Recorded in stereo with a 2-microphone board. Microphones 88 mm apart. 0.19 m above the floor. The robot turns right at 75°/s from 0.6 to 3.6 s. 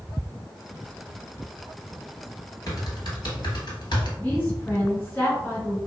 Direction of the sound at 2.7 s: 40° left (ahead or behind).